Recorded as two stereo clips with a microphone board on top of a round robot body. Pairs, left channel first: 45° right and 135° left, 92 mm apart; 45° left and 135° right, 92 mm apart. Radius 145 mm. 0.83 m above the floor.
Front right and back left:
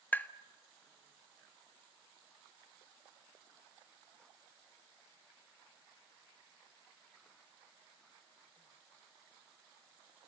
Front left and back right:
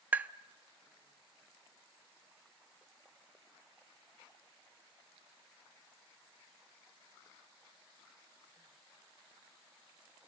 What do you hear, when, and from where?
0.1 s tapping: 90° right, 0.8 m